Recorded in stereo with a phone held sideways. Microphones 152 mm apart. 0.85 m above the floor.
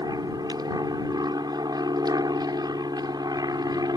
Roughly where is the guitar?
No guitar in this recording.